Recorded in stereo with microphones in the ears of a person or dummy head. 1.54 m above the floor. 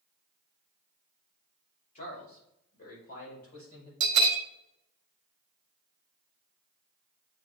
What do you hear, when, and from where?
1.9 s a man speaking: 45° left (ahead or behind), 3.5 m; by 3.9 s 55° left (ahead or behind), 6 m
4.0 s a bell: 60° right (ahead or behind), 0.7 m